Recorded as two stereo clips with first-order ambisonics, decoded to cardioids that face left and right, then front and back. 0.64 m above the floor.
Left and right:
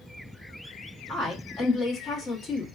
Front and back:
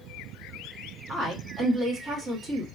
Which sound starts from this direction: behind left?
A woman speaking, at 1.1 s.